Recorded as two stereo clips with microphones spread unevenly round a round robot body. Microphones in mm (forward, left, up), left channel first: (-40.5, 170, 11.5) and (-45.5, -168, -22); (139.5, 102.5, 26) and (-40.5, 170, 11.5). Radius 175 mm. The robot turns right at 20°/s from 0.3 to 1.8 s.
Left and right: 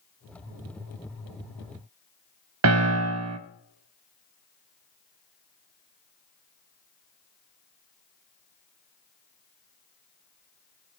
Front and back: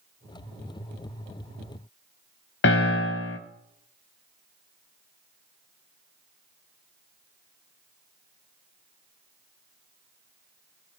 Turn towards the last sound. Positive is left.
turn(degrees=-45)